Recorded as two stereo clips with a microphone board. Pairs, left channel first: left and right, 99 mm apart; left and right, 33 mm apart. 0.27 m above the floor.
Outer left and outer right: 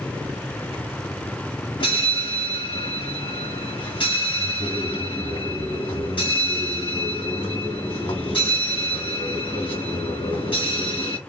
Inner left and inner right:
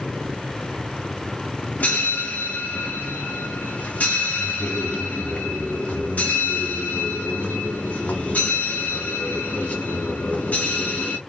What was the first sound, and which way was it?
A bell, 60° left (ahead or behind).